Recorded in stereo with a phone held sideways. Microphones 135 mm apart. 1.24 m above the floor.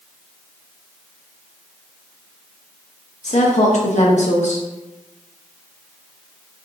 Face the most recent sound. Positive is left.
turn(degrees=60)  # may be behind; listen again after turning